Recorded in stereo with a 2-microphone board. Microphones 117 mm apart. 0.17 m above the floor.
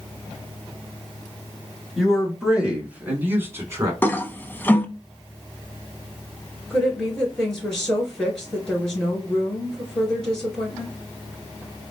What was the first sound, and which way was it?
A man speaking, centre (ahead or behind).